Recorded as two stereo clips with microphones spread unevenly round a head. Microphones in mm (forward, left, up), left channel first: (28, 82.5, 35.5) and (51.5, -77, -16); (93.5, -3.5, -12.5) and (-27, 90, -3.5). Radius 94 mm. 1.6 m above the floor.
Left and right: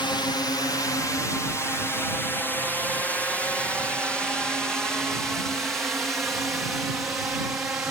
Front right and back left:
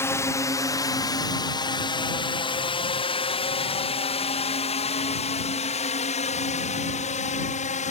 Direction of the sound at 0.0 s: 25° left.